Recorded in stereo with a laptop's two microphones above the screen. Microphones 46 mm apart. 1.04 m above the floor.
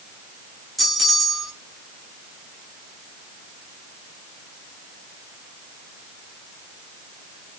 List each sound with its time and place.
0.8 s a bell: centre (ahead or behind), 0.7 m